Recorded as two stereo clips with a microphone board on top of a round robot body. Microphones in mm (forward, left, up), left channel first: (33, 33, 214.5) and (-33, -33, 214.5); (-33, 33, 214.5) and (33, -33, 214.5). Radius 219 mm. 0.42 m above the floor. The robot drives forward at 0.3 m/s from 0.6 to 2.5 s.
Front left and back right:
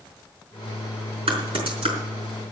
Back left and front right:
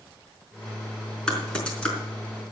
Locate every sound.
1.3 s typing on a keyboard: 145° right, 4.5 m